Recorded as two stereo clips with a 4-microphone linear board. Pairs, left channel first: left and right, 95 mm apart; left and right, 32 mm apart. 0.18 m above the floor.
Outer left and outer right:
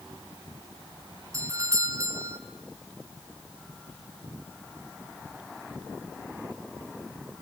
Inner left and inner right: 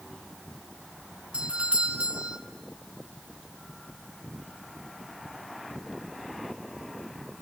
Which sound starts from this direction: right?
A doorbell, at 1.3 s.